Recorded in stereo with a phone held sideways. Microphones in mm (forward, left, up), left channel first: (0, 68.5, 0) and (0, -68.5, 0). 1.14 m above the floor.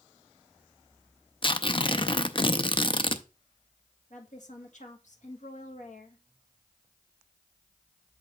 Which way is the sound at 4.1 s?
65° left (ahead or behind).